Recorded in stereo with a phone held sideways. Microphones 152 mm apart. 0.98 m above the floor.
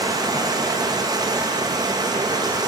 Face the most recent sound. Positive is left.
turn(degrees=-25)  # may be behind; listen again after turning